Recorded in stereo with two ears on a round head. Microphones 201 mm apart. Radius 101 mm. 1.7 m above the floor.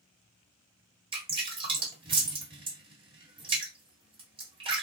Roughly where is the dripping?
Right.